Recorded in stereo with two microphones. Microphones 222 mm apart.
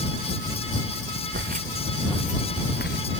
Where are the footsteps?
55° right (ahead or behind); by 3.0 s 50° left (ahead or behind).